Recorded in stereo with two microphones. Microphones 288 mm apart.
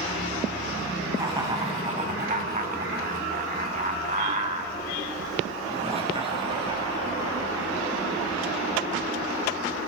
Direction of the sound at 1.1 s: 15° right (ahead or behind).